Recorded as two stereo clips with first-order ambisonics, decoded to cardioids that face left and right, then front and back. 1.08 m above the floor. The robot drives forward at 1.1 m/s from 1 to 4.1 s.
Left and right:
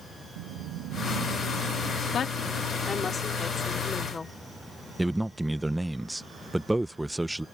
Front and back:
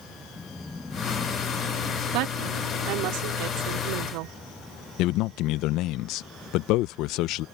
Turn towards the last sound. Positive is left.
turn(degrees=-5)